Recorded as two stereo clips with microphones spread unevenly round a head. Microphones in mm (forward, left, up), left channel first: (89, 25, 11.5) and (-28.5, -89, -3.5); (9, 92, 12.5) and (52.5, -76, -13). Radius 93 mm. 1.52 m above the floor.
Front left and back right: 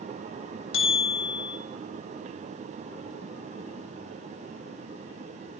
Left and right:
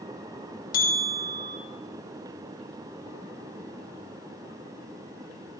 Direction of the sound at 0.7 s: 70° left.